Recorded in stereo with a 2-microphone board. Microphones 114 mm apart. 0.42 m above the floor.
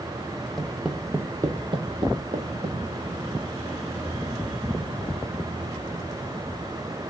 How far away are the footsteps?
About 0.7 m.